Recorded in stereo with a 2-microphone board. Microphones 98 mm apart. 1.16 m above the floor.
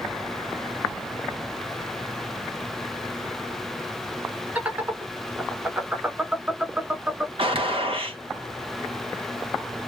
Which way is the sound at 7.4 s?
70° right (ahead or behind).